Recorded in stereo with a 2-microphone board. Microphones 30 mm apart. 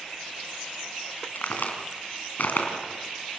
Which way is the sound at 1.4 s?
85° left.